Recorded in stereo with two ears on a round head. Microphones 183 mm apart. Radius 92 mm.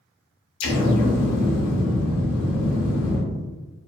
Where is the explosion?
70° left (ahead or behind), 0.6 m.